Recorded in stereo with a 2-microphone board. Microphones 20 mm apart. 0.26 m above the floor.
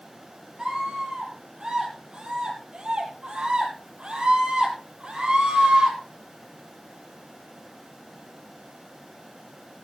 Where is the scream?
25° right (ahead or behind), 8 m; by 6.0 s 45° right (ahead or behind), 8.5 m.